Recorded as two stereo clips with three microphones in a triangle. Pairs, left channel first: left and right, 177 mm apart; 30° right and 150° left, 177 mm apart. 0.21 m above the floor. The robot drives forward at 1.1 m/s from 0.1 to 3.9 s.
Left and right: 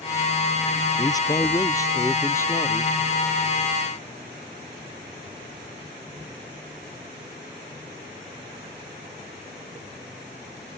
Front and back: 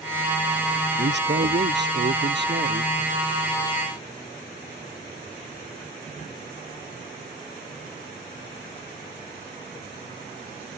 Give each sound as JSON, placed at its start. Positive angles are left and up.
{"t": 1.0, "sound": "a man speaking", "azimuth_deg": 160}